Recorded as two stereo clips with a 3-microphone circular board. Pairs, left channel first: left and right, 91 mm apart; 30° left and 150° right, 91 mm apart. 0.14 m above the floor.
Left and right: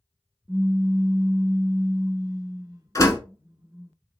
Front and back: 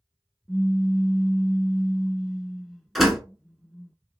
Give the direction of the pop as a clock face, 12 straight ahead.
2 o'clock.